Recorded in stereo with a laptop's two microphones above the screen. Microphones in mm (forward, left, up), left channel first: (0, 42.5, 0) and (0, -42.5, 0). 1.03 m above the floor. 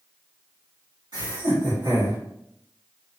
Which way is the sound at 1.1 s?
65° right (ahead or behind).